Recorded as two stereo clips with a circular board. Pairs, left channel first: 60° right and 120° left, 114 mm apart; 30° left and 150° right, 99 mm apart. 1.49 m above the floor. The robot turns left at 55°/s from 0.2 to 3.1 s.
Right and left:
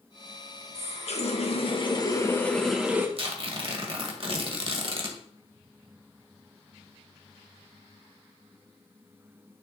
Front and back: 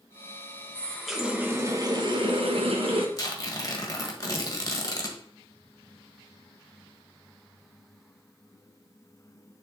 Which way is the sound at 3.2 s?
85° left.